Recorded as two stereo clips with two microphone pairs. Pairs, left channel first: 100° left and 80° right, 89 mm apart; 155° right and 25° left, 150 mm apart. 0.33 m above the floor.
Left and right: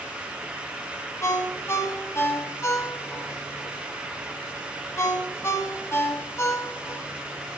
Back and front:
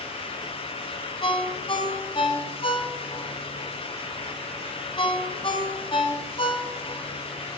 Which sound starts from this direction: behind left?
A ringtone, at 1.2 s.